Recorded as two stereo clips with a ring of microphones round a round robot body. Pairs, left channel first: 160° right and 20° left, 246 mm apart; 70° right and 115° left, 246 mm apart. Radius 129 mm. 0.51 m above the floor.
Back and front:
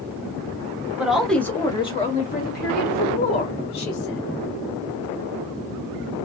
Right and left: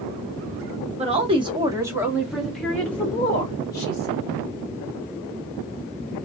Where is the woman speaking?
100° left, 1.0 m; by 4.2 s 140° right, 1.8 m.